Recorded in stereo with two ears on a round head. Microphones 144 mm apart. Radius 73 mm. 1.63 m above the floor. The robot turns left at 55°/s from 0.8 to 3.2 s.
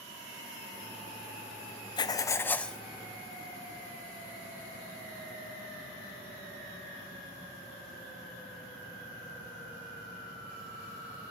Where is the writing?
50° left, 0.6 m; by 2.8 s straight ahead, 0.6 m.